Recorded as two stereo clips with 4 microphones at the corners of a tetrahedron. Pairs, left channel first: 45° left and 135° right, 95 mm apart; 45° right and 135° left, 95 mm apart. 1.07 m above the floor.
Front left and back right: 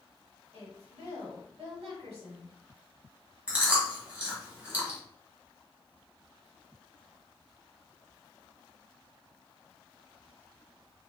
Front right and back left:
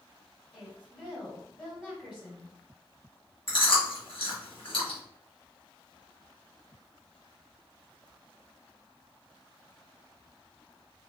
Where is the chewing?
60° right, 1.5 m.